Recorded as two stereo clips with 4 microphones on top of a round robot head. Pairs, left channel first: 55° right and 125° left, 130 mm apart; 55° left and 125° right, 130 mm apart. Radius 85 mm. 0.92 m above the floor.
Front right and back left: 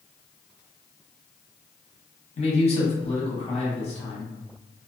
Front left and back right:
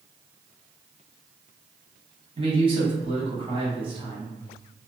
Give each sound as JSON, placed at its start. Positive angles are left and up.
{"t": 2.4, "sound": "a man speaking", "azimuth_deg": -85, "distance_m": 1.6}